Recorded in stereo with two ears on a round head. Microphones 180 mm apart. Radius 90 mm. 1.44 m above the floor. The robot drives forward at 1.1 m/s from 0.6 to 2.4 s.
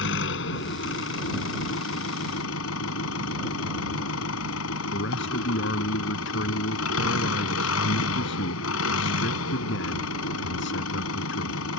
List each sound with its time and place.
0.0 s an engine running: 65° left (ahead or behind); by 11.8 s 80° left
4.9 s a man speaking: 60° left (ahead or behind)